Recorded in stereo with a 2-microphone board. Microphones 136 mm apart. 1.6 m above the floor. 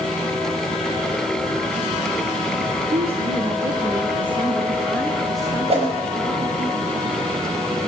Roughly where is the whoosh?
Right.